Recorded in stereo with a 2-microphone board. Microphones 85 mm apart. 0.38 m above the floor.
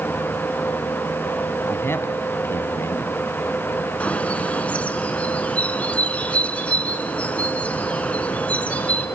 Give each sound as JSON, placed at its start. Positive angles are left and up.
{"t": 1.7, "sound": "a man speaking", "side_deg": 30, "distance_m": 2.5}
{"t": 4.0, "sound": "a bird", "side_deg": 15, "distance_m": 1.9}